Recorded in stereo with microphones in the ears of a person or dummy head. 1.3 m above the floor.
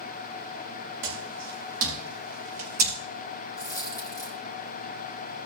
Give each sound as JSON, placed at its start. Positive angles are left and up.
{"t": 1.0, "sound": "footsteps", "side_deg": -55, "distance_m": 4.5}
{"t": 3.6, "sound": "a dropped coin", "side_deg": 15, "distance_m": 1.2}